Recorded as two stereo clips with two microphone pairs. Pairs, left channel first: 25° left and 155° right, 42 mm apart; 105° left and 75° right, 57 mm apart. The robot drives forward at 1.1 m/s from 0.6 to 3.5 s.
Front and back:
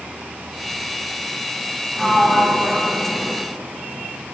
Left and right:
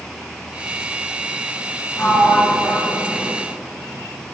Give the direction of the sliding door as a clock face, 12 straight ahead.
9 o'clock.